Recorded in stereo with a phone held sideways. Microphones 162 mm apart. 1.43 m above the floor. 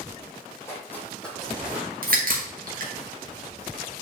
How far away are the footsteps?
About 3 m.